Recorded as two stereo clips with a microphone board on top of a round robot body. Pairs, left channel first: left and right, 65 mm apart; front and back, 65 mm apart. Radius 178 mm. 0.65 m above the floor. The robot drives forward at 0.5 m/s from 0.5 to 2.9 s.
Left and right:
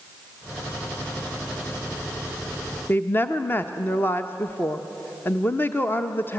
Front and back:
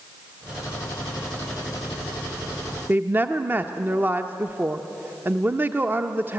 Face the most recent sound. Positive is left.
turn(degrees=135)